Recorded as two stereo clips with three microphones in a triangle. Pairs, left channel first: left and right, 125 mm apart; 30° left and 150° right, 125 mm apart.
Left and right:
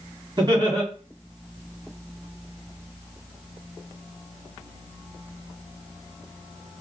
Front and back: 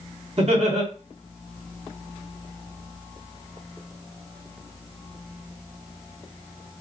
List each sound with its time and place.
0.4 s laughter: 140° right, 1.4 m